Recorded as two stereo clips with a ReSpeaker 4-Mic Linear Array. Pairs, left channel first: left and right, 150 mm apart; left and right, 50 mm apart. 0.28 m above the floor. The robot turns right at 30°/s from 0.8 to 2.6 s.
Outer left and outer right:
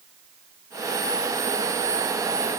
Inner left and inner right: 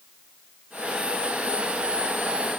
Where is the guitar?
I don't hear a guitar.